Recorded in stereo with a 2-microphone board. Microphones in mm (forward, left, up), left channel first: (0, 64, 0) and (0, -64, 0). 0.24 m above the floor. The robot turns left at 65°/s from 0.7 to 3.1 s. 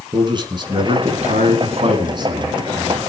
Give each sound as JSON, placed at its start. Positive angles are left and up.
{"t": 0.1, "sound": "a man speaking", "azimuth_deg": -40, "distance_m": 3.5}